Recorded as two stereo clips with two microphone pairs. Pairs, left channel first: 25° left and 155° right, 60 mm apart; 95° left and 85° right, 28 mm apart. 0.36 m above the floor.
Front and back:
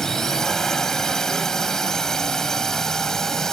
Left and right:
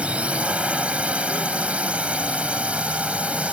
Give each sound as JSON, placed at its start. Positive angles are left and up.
{"t": 0.0, "sound": "a drone", "azimuth_deg": -55}